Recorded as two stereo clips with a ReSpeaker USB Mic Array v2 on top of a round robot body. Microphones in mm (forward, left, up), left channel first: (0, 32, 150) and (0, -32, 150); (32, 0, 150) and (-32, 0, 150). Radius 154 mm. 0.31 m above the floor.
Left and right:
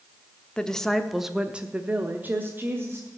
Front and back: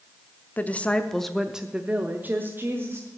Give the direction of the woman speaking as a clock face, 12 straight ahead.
11 o'clock.